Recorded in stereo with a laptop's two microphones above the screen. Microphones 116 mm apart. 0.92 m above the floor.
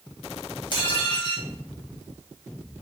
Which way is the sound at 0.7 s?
40° left (ahead or behind).